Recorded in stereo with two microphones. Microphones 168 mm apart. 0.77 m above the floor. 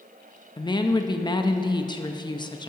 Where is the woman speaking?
25° left (ahead or behind), 0.5 m.